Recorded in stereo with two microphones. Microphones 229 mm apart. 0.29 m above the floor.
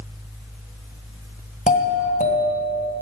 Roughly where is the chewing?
No chewing in this recording.